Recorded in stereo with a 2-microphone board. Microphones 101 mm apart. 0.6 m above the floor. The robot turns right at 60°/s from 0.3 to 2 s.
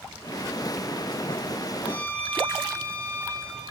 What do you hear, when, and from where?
1.8 s a violin: 30° left (ahead or behind), 3.5 m; by 3.6 s 15° left (ahead or behind), 3.5 m